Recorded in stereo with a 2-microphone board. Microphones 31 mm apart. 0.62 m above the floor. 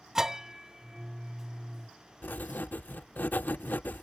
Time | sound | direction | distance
0.1 | a bell | 20° right (ahead or behind) | ?
2.2 | writing | 80° left | ?